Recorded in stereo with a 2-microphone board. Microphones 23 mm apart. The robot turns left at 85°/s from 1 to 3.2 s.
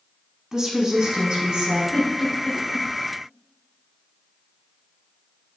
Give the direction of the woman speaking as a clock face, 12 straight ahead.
1 o'clock.